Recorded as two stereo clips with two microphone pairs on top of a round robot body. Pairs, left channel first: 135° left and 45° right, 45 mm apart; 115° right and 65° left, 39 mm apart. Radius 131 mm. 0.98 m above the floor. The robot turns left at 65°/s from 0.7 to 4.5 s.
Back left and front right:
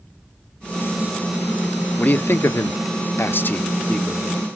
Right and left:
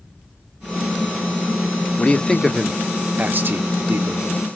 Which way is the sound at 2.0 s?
170° right.